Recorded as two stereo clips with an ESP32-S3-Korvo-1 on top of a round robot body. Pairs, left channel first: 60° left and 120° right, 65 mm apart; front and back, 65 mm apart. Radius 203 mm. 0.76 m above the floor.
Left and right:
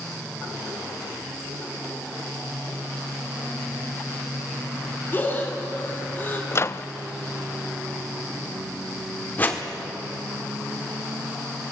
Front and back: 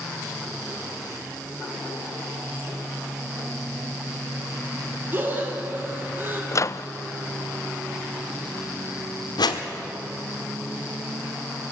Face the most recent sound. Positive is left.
turn(degrees=-5)